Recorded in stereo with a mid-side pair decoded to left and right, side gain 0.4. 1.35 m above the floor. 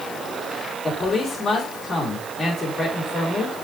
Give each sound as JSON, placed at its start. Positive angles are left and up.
{"t": 0.8, "sound": "a man speaking", "azimuth_deg": 40, "distance_m": 4.5}